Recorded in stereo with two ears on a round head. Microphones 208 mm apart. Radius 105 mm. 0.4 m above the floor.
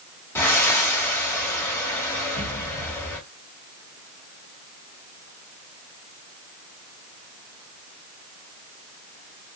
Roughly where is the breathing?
Centre.